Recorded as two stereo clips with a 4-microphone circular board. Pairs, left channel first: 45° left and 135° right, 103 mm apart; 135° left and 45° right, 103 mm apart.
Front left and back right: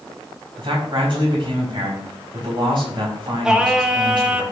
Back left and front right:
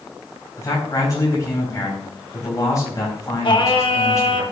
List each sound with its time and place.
0.6 s a man speaking: 170° right, 5.5 m
3.4 s singing: 145° left, 1.3 m